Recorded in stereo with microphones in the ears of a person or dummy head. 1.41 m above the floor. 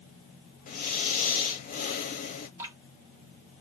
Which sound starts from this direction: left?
Breathing, at 0.7 s.